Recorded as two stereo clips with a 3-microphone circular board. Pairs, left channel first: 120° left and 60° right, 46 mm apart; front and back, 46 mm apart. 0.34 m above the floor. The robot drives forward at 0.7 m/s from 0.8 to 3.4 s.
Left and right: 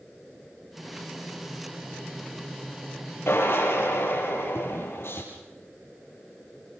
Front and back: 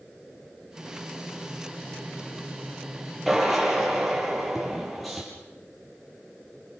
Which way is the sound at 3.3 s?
90° left.